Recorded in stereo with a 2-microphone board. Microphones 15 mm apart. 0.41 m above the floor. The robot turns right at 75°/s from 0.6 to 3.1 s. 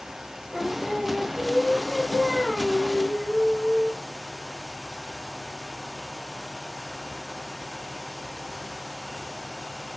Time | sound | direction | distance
0.5 | singing | 130° left | 3.5 m